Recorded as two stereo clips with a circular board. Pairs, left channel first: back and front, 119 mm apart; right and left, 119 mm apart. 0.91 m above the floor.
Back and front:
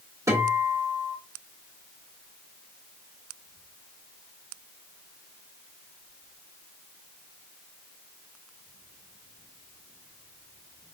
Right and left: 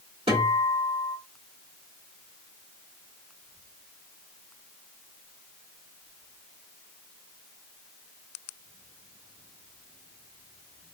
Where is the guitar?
60° left, 1.6 m.